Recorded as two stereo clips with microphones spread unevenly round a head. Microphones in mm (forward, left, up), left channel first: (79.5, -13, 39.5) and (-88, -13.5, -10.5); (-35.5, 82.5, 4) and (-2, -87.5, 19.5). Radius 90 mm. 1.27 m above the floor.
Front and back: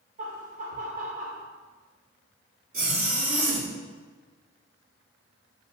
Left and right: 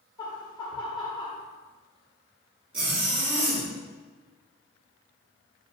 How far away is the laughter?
About 1.0 m.